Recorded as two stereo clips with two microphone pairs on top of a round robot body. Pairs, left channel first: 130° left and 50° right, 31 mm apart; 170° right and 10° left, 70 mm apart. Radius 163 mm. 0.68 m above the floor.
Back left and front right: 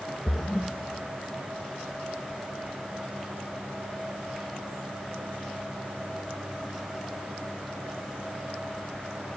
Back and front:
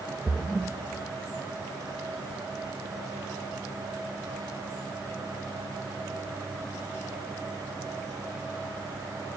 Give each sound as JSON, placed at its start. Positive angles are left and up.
{"t": 0.3, "sound": "a splash", "azimuth_deg": 75, "distance_m": 0.6}